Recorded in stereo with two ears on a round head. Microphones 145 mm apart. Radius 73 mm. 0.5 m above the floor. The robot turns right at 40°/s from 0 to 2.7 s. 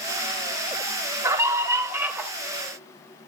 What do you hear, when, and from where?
1.2 s a scream: 20° right (ahead or behind), 1.1 m; by 2.3 s 10° right (ahead or behind), 1.1 m